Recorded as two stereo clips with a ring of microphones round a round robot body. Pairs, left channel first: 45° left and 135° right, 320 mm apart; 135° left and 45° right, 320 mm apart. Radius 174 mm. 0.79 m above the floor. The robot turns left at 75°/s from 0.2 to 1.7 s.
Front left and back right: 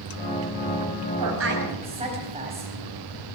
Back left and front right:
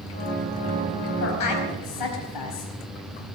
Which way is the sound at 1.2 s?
170° right.